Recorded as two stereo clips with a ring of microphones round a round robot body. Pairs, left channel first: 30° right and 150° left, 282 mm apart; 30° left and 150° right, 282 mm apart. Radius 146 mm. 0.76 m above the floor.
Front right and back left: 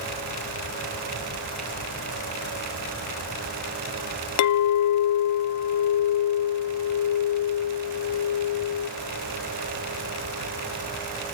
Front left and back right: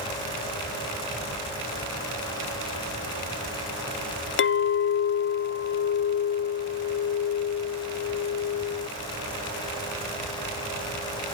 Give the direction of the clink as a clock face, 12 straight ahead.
12 o'clock.